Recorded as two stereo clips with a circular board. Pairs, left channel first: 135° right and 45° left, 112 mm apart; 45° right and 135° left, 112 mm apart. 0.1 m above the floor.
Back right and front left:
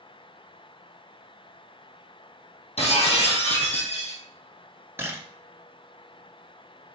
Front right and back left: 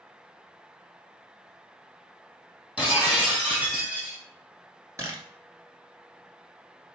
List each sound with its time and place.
2.8 s breaking glass: 145° right, 2.5 m
5.0 s a camera shutter: 95° left, 1.2 m